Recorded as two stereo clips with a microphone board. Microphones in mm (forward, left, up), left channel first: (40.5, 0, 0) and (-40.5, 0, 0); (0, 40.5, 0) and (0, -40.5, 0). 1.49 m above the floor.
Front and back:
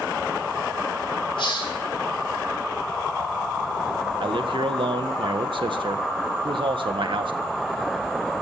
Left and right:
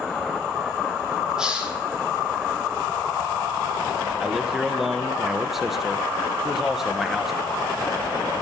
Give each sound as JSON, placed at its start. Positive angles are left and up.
{"t": 1.4, "sound": "a hiss", "azimuth_deg": -10, "distance_m": 3.5}
{"t": 4.2, "sound": "a man speaking", "azimuth_deg": -175, "distance_m": 1.6}